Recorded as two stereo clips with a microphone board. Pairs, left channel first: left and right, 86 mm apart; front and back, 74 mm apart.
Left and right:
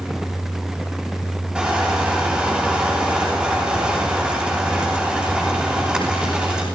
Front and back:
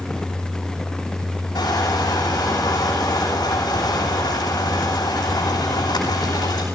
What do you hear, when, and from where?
1.6 s crushing: 10° right, 9.5 m